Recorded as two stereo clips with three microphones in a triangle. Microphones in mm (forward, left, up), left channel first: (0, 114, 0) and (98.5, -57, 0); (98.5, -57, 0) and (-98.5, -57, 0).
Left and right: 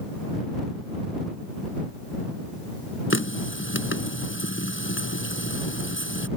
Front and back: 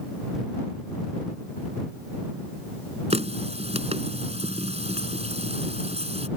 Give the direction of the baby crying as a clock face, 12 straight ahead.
I don't hear a baby crying.